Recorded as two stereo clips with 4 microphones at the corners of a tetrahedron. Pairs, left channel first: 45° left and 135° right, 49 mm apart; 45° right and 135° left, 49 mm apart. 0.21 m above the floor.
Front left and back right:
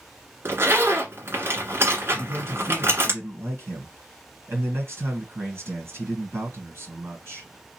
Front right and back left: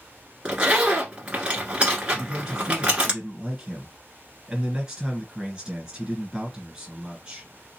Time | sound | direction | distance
0.5 | a zipper | 160° right | 1.6 m
2.1 | a man speaking | 150° right | 2.5 m